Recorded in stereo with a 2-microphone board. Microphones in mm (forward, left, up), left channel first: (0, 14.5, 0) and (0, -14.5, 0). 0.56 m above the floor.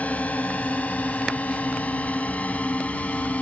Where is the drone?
55° left (ahead or behind); by 3.4 s 50° left (ahead or behind).